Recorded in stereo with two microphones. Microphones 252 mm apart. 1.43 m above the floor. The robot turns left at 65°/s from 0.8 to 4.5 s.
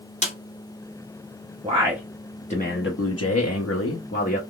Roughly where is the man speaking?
Behind right.